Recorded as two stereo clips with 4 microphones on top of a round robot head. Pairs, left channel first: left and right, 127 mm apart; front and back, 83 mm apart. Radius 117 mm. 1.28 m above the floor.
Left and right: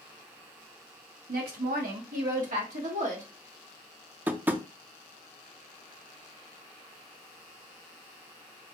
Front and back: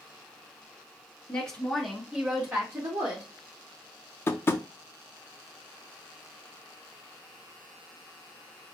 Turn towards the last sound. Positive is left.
turn(degrees=-25)